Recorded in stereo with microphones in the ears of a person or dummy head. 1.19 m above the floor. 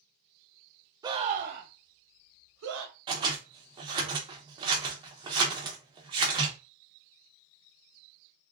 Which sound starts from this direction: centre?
A scream, at 1.0 s.